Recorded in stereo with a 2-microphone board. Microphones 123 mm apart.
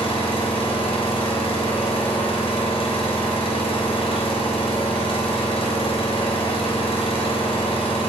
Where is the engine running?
50° left (ahead or behind), 2.5 m.